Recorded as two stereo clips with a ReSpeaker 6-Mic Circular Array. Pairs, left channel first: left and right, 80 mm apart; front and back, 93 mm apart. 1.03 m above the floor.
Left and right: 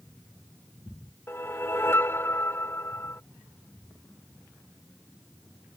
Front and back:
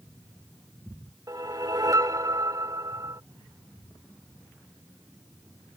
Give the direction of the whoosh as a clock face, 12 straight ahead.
7 o'clock.